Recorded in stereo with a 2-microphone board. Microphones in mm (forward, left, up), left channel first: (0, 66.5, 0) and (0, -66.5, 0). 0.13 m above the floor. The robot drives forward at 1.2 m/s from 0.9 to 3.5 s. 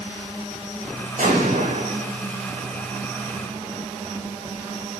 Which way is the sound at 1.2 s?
80° right.